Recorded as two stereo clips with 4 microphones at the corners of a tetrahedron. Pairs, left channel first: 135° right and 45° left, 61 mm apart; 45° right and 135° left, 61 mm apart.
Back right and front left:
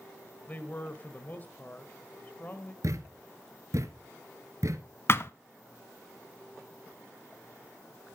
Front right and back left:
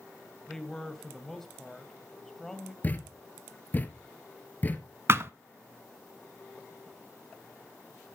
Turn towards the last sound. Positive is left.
turn(degrees=180)